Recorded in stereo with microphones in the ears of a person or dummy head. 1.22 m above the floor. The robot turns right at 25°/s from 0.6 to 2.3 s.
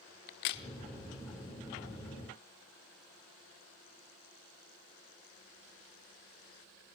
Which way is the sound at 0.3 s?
55° left (ahead or behind).